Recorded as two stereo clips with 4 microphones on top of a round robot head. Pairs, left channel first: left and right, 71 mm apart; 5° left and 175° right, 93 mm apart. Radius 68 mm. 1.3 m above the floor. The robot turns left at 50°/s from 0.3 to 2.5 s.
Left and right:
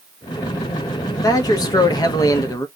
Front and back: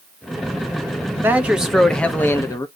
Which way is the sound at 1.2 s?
120° left.